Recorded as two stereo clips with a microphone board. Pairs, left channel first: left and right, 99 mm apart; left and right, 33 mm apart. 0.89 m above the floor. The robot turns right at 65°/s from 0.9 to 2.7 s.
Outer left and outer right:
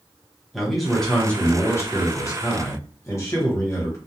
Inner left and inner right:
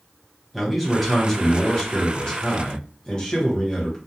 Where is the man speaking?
Straight ahead, 1.0 m; by 4.0 s 115° left, 1.0 m.